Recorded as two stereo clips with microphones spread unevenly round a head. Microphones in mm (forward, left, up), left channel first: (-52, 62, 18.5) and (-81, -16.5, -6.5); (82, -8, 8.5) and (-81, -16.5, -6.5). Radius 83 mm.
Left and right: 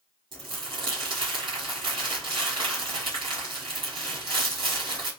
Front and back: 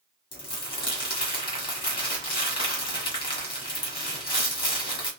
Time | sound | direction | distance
0.3 | crumpling | 45° right | 1.7 m